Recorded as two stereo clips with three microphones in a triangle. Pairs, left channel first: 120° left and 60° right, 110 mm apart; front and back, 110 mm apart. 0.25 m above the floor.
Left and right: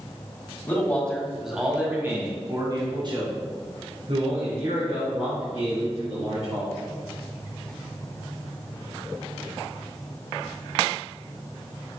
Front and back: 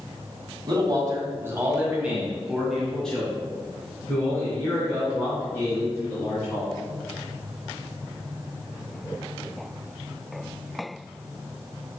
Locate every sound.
0.7 s a man speaking: straight behind, 1.9 m; by 6.8 s 60° right, 5 m